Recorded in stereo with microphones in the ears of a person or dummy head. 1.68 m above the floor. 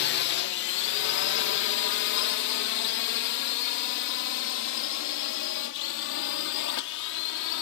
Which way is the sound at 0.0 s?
60° left (ahead or behind).